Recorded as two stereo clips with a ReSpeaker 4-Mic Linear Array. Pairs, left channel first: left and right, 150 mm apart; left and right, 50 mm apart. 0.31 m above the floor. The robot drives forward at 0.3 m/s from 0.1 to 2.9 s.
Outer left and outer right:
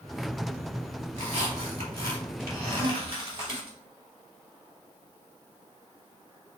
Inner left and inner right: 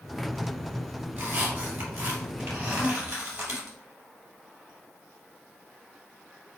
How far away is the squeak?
About 2 m.